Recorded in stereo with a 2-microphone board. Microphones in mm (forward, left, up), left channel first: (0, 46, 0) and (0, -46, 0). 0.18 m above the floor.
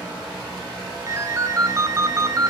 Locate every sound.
1.1 s a ringtone: 35° right (ahead or behind), 0.7 m